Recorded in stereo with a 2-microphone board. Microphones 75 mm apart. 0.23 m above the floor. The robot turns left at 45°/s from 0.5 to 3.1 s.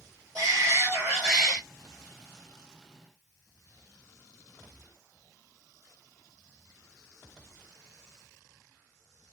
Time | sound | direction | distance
0.3 | a shout | 140° right | 4 m